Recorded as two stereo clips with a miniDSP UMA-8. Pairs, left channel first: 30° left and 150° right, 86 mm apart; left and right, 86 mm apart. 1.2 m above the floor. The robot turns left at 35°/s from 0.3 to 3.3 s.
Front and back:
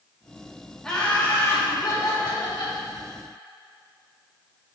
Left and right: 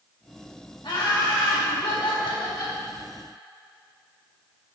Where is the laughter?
110° left, 2 m; by 2.8 s 45° left, 2 m.